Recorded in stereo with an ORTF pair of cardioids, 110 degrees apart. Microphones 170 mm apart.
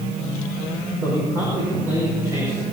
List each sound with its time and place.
1.0 s a man speaking: 15° right, 6.5 m